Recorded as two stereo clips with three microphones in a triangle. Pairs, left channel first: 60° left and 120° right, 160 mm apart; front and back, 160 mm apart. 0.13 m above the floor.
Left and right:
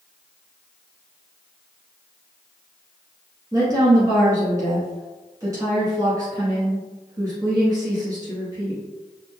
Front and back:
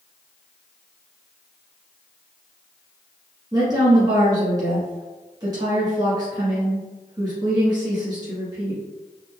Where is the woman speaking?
155° right, 1.1 m.